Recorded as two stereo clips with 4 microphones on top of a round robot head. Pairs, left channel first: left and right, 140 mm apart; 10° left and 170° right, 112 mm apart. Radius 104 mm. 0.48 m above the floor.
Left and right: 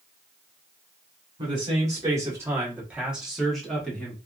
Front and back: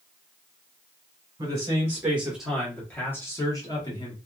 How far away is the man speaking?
About 1.3 m.